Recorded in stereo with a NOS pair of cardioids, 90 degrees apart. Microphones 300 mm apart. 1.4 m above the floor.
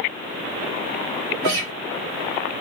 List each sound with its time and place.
1.4 s a guitar: 70° right, 1.3 m